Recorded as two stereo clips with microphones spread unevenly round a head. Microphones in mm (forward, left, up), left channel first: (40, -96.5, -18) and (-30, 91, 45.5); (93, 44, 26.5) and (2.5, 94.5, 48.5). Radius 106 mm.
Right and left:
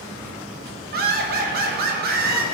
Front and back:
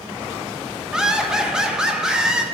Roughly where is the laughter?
Left.